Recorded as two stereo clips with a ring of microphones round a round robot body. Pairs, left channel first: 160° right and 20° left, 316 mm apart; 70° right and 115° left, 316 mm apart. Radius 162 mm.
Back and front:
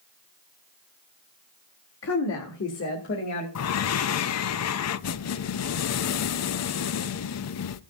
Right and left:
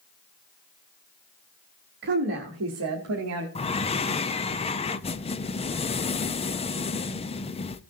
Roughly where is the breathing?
Behind right.